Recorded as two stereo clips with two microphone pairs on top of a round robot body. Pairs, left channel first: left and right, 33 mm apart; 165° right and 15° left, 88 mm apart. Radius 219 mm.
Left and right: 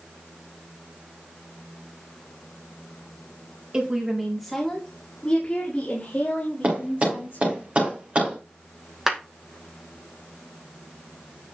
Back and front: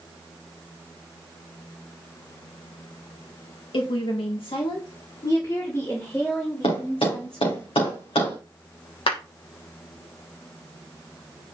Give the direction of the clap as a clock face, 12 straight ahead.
6 o'clock.